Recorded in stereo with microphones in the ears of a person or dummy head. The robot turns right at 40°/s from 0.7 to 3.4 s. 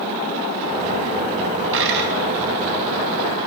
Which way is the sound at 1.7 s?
70° right (ahead or behind).